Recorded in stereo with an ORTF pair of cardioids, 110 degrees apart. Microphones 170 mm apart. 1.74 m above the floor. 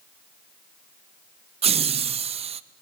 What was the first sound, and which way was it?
Laughter, 35° right.